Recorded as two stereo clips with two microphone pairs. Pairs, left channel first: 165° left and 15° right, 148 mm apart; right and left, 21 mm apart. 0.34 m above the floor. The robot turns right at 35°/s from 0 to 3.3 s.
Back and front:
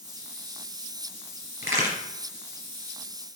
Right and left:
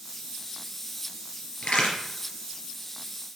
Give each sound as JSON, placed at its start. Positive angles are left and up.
{"t": 1.6, "sound": "a crack", "azimuth_deg": -95, "distance_m": 3.0}